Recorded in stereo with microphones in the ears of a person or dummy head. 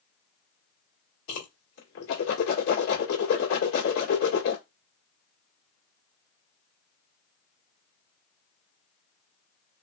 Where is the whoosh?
65° left (ahead or behind), 1.9 m.